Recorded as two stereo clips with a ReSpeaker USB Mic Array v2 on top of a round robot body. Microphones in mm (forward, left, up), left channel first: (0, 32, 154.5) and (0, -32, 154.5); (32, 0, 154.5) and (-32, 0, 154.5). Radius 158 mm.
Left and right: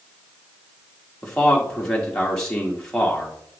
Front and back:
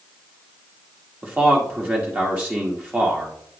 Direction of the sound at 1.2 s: 155° left.